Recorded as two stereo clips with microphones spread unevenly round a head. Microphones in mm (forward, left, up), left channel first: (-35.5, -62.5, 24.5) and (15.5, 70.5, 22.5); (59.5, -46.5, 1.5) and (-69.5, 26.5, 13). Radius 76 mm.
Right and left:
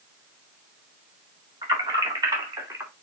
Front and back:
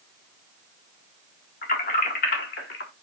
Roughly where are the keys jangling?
Ahead.